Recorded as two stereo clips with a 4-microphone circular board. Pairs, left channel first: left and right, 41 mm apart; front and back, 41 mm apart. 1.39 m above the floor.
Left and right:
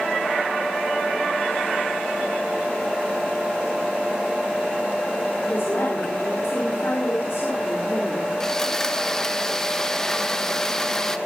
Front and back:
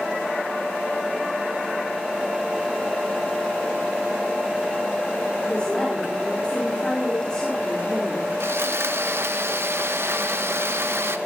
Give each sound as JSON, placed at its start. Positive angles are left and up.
{"t": 5.4, "sound": "a woman speaking", "azimuth_deg": 65, "distance_m": 5.0}
{"t": 8.4, "sound": "sawing", "azimuth_deg": 165, "distance_m": 1.4}